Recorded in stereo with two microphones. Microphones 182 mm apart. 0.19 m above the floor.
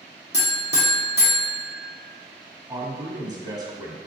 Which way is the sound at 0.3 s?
65° left (ahead or behind).